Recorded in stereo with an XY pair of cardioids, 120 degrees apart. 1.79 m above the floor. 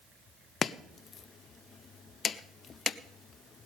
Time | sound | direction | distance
0.6 | chopping | 40° left | 0.6 m